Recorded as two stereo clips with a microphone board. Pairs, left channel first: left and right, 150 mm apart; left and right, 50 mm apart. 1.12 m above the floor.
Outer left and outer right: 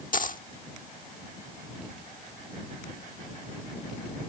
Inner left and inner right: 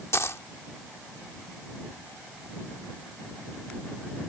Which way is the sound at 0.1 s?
65° left (ahead or behind).